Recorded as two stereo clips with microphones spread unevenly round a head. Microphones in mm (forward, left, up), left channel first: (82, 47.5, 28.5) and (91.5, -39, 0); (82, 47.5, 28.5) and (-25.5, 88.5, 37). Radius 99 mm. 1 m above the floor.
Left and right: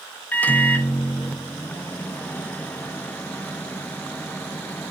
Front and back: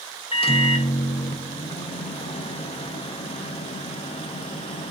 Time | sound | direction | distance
0.3 | a microwave | 15° left | 0.5 m